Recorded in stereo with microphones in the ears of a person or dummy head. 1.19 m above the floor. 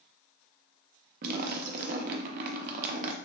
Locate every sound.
1.2 s a splash: 45° right (ahead or behind), 0.5 m